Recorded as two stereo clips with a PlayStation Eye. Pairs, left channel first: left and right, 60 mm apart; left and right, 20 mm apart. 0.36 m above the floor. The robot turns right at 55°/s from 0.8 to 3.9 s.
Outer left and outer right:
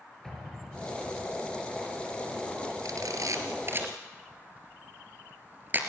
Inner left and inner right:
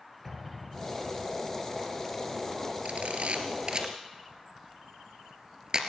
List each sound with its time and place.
0.2 s an explosion: 5° left, 5 m; by 1.4 s 40° left, 5 m
2.9 s a camera shutter: 85° right, 2.5 m; by 5.8 s 35° right (ahead or behind), 2.5 m